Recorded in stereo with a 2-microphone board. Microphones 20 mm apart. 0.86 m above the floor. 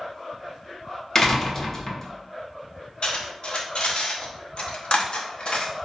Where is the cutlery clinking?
50° left (ahead or behind), 0.7 m.